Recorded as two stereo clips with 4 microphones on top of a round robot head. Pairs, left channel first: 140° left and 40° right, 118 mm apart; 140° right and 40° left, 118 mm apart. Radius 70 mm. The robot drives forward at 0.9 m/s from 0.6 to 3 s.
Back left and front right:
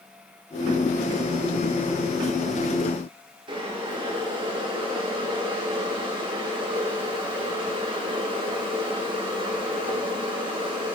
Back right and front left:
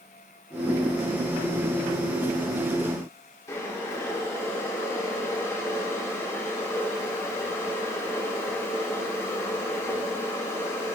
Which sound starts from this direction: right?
Boiling, at 3.5 s.